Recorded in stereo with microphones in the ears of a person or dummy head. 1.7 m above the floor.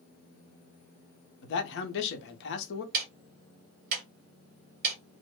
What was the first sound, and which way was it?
A man speaking, 65° left (ahead or behind).